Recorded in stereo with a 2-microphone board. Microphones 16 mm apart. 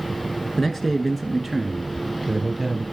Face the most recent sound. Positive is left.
turn(degrees=-10)  # may be behind; listen again after turning